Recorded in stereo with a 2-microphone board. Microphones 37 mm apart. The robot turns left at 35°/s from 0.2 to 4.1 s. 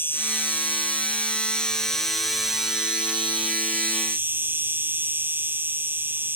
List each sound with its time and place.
0.0 s an insect: 70° left; by 6.4 s 65° right